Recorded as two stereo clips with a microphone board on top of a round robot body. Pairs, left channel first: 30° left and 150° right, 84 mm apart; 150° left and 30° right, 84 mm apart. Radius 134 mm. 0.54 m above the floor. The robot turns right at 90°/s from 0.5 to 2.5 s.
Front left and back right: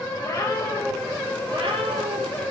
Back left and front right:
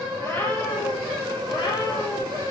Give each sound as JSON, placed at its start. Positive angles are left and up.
{"t": 0.2, "sound": "a cat meowing", "azimuth_deg": 85, "distance_m": 5.0}